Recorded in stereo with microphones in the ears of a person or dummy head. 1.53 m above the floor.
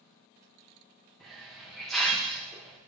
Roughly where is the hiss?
Centre.